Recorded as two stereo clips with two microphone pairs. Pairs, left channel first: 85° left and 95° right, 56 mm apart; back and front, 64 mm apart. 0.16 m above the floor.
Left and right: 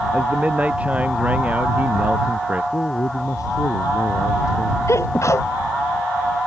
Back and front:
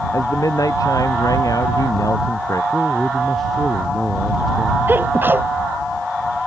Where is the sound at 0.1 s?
160° right.